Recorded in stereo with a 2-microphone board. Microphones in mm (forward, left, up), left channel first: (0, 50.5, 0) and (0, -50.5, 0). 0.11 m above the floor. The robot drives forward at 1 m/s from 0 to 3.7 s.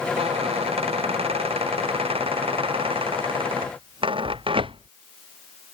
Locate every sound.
0.2 s a squeak: 85° right; by 4.9 s 60° right (ahead or behind)